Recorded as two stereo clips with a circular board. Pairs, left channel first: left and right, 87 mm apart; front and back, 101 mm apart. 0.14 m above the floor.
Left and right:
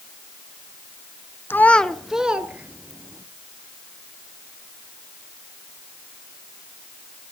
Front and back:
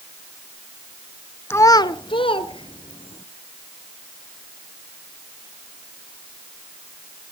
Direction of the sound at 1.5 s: 50° left.